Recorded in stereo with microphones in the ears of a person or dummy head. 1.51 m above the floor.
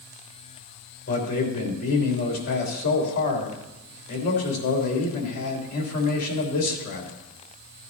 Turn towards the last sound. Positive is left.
turn(degrees=45)  # may be behind; listen again after turning